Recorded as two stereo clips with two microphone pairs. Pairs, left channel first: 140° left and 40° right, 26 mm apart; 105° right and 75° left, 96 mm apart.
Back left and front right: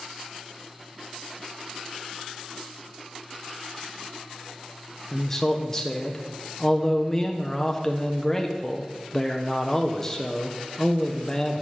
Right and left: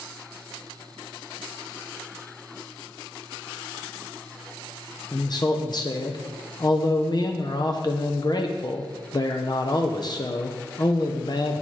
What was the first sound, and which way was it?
A man speaking, 145° right.